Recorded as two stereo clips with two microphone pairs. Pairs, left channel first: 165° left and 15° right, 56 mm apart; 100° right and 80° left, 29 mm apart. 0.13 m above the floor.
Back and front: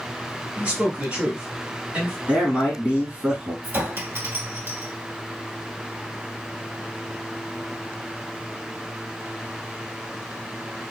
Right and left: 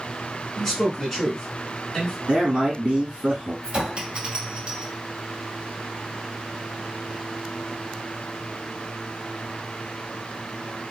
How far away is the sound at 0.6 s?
About 1.6 m.